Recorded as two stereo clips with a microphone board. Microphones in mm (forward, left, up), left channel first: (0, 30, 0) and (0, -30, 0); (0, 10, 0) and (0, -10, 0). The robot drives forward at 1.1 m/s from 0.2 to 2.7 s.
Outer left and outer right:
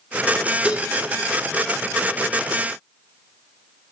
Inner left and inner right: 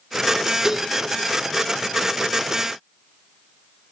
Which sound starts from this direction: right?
Dishes clattering, at 0.6 s.